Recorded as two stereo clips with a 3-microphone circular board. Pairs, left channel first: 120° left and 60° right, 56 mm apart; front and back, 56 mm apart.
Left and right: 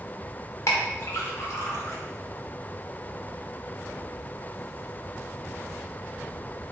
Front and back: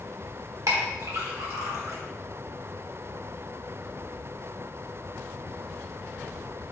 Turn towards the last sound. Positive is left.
turn(degrees=155)